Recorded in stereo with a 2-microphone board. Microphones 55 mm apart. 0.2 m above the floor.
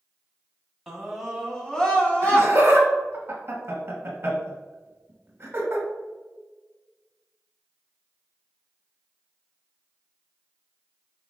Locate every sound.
0.9 s a scream: 5° right (ahead or behind), 1.1 m; by 2.5 s 25° left (ahead or behind), 1.5 m
2.2 s laughter: 35° right (ahead or behind), 1.2 m